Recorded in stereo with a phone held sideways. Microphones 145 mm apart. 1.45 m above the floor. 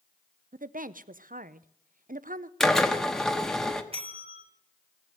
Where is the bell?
40° right (ahead or behind), 1.7 m.